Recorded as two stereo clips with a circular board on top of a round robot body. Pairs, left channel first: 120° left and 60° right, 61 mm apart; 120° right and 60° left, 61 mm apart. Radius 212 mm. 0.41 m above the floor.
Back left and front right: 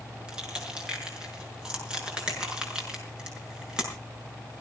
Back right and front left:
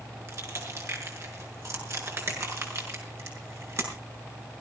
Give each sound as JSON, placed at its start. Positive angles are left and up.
{"t": 0.3, "sound": "crushing", "azimuth_deg": 20, "distance_m": 6.5}